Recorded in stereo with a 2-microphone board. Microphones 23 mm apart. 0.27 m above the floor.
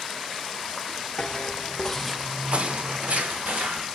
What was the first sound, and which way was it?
Footsteps, 45° left (ahead or behind).